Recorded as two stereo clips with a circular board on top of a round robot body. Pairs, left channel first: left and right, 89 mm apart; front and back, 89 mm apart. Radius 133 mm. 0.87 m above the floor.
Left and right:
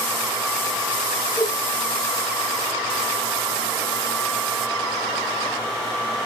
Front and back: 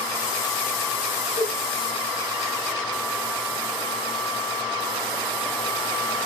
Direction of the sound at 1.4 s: 10° left.